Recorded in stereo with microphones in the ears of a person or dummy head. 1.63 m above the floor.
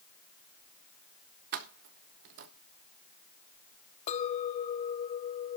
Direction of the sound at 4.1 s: 40° left (ahead or behind).